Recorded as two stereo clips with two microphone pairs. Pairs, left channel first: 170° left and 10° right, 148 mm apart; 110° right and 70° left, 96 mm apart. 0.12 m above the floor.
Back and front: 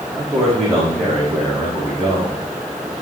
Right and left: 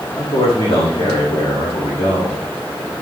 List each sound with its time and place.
0.2 s a man speaking: 105° right, 6 m